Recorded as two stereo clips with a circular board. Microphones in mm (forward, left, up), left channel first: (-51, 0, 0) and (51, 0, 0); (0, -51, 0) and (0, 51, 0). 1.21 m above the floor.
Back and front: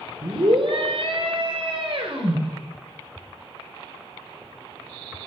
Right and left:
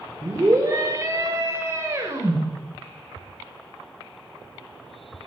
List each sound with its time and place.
0.2 s a scream: 35° left, 5 m; by 2.4 s 30° left, 6.5 m